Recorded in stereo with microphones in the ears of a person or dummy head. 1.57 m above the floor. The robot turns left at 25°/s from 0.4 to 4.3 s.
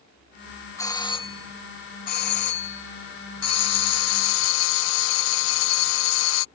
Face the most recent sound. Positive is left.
turn(degrees=75)